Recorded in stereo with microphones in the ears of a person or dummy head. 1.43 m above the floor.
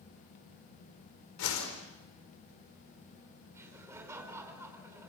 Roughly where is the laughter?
Centre.